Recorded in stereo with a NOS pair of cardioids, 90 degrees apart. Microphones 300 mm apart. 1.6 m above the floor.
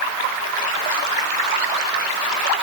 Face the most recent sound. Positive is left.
No sound to turn to.